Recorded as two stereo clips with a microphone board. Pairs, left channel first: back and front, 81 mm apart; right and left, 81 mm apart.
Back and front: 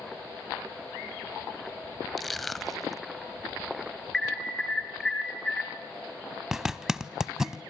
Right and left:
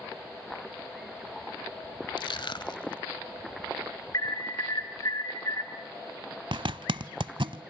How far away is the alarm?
About 3 m.